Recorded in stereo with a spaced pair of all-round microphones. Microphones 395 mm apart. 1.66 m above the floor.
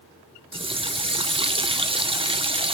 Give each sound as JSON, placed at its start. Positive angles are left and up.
{"t": 0.5, "sound": "a running tap", "side_deg": -15, "distance_m": 0.6}